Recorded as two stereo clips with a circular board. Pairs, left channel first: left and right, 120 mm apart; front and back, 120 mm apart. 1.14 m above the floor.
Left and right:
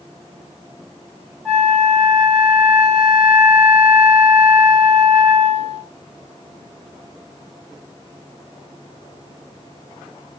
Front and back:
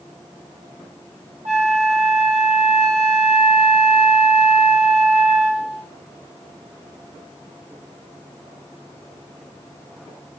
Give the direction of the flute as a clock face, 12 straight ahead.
6 o'clock.